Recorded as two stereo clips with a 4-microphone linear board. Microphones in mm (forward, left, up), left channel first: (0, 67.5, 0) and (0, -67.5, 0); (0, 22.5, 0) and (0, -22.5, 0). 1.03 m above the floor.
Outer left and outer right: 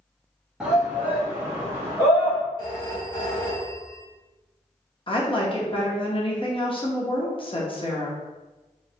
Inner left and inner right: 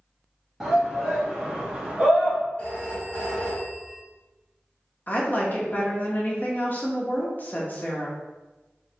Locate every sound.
0.6 s a shout: 5° right (ahead or behind), 0.9 m; by 2.4 s 25° right (ahead or behind), 1.8 m
2.6 s a phone ringing: 35° left (ahead or behind), 1.5 m
5.1 s a woman speaking: 40° left (ahead or behind), 0.9 m